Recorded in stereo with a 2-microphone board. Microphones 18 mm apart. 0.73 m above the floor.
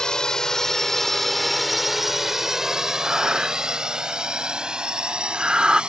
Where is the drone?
40° left (ahead or behind); by 5.9 s 60° right (ahead or behind).